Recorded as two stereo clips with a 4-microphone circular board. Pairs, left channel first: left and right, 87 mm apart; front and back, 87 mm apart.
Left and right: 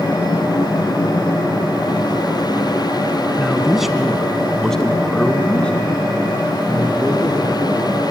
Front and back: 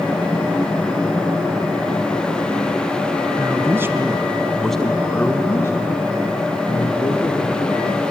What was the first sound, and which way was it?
A man speaking, 170° right.